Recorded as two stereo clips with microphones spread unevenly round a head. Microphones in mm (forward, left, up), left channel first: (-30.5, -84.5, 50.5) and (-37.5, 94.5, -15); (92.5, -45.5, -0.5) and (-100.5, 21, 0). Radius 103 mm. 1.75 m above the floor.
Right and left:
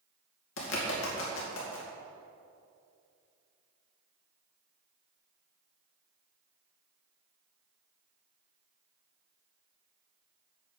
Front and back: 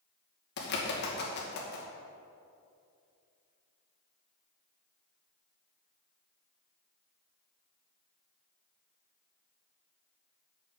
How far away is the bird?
About 2.5 m.